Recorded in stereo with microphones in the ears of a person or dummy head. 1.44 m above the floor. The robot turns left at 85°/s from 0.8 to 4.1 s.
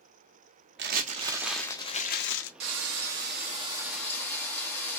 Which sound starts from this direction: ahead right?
Frying, at 2.6 s.